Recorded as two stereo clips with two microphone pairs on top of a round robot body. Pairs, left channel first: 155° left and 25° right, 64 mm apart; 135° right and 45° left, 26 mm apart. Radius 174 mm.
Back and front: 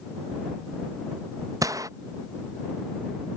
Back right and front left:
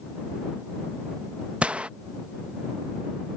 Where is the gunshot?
Straight ahead.